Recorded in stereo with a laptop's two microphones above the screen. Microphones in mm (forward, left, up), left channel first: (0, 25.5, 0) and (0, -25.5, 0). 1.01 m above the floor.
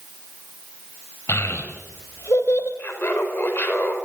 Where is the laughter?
40° left (ahead or behind), 4 m.